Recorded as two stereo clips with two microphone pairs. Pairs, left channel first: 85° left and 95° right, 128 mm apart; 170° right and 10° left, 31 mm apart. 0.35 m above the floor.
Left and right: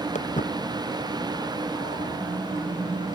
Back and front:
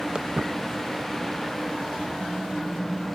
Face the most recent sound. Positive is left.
turn(degrees=90)